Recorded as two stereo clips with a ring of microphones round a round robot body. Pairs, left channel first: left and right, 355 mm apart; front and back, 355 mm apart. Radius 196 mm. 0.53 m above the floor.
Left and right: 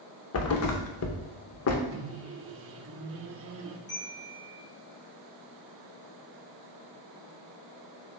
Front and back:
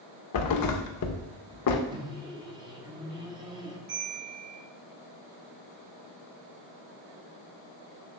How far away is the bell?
About 3.5 m.